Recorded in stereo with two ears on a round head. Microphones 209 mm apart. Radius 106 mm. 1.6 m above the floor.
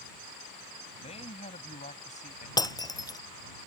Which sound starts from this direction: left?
A man speaking, at 1.0 s.